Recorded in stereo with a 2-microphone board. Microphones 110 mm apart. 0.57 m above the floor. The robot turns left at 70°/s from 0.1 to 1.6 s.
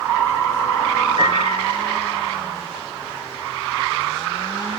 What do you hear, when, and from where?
1.2 s a piano: 45° right, 9 m; by 1.7 s 75° right, 9 m